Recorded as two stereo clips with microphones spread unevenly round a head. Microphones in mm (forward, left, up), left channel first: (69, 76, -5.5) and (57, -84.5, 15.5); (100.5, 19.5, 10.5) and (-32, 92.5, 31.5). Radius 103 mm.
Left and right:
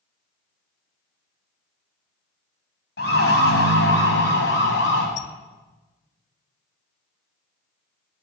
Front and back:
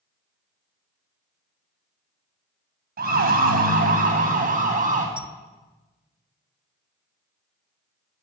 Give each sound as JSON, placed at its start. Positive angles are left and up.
{"t": 3.0, "sound": "a siren", "azimuth_deg": 130, "distance_m": 6.5}
{"t": 5.2, "sound": "a squeak", "azimuth_deg": 95, "distance_m": 1.4}